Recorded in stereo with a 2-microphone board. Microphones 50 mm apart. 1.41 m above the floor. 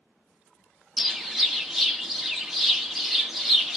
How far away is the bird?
About 0.8 m.